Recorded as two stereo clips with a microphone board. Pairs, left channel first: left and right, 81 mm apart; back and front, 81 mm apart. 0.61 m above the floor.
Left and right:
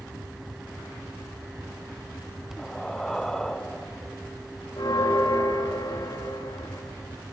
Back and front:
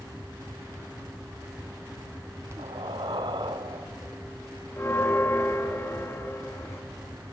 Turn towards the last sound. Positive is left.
turn(degrees=125)